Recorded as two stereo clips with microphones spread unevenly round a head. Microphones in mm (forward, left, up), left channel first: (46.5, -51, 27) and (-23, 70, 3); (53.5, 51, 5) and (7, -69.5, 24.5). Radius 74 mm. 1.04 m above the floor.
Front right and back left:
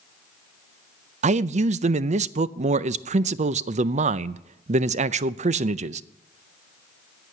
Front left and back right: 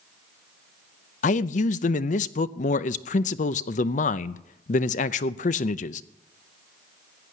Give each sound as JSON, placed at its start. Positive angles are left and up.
{"t": 1.2, "sound": "a man speaking", "azimuth_deg": 90, "distance_m": 0.5}